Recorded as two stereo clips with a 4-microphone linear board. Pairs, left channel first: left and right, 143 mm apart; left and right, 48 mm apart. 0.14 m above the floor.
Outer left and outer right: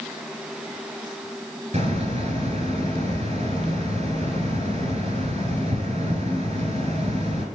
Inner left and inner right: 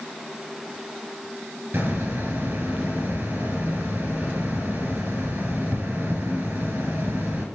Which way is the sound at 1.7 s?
50° right (ahead or behind).